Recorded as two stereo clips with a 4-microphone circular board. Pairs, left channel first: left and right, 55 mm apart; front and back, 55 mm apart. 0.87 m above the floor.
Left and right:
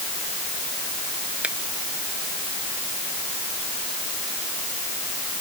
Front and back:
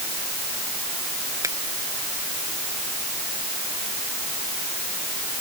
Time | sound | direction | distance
1.4 | a finger snap | 160° right | ?